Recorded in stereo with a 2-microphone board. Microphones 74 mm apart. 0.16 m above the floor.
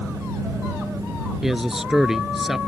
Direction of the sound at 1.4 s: 5° right (ahead or behind).